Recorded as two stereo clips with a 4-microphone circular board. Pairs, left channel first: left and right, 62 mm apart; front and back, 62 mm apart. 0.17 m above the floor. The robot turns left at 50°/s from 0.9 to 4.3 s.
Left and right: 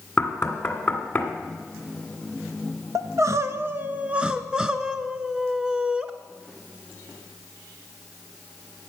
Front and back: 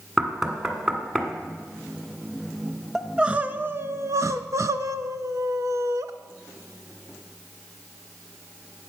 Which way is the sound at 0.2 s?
100° left.